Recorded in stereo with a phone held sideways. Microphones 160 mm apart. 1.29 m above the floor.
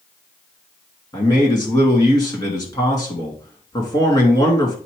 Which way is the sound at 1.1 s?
30° left (ahead or behind).